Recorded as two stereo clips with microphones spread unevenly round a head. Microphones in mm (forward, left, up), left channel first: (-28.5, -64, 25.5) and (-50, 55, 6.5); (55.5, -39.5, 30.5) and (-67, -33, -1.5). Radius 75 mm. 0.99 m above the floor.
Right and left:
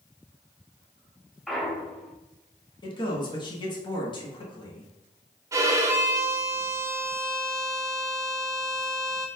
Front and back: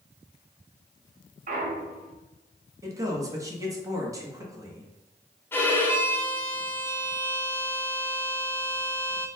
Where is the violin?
80° left, 0.6 m.